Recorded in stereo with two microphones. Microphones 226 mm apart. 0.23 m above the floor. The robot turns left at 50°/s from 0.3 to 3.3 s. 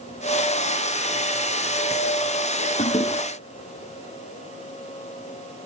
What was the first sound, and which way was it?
A toilet flushing, 40° left (ahead or behind).